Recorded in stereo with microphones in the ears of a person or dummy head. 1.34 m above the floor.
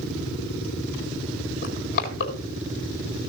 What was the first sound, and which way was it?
Crushing, 50° left (ahead or behind).